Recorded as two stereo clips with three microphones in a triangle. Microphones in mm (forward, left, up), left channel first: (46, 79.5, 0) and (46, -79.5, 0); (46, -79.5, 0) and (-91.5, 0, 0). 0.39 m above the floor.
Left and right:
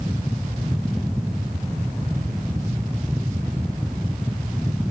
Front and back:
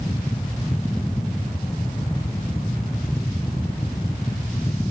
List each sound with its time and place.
Only background noise.